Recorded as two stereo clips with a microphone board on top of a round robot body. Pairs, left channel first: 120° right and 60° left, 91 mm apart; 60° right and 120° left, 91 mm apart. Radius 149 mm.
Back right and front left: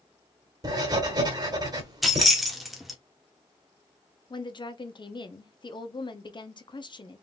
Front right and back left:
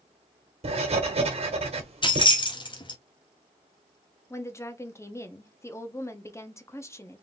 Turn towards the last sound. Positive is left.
turn(degrees=-115)